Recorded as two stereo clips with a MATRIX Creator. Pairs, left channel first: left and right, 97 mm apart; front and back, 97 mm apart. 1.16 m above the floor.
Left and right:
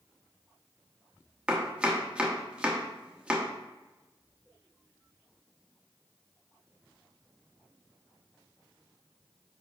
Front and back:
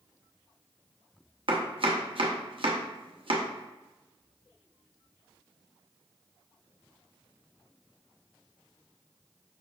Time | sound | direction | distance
1.5 | chopping | 170° right | 0.8 m